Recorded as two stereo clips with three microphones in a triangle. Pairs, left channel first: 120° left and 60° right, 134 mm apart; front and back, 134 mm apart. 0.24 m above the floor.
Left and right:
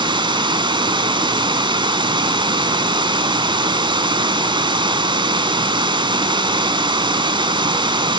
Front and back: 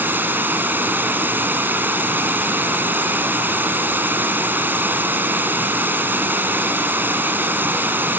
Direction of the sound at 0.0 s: 105° right.